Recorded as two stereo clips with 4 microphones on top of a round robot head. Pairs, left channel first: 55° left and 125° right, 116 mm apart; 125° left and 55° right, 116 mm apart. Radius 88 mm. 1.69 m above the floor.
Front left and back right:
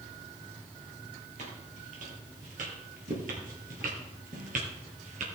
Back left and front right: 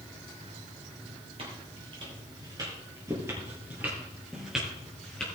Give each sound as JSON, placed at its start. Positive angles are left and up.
{"t": 1.4, "sound": "footsteps", "azimuth_deg": -95, "distance_m": 3.0}